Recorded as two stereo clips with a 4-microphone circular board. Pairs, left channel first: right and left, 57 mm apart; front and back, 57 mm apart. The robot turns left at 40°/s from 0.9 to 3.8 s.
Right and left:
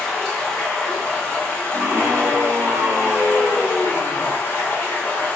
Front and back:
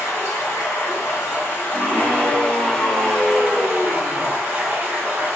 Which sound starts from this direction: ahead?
Running water, at 0.0 s.